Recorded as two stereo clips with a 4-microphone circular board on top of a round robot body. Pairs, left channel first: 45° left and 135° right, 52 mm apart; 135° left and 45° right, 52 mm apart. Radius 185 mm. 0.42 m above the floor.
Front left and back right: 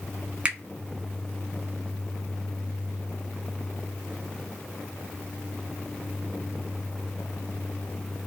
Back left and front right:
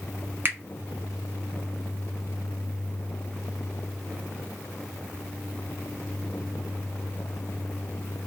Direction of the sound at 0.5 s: 75° right.